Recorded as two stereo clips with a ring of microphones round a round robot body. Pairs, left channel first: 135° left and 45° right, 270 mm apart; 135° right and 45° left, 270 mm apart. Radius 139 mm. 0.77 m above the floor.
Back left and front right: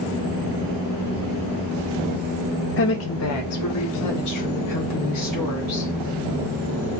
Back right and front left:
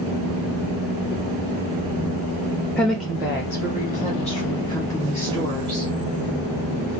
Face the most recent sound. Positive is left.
turn(degrees=120)